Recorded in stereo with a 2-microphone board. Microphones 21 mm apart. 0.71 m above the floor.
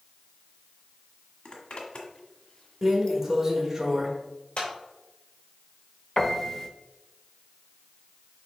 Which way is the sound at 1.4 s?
60° left (ahead or behind).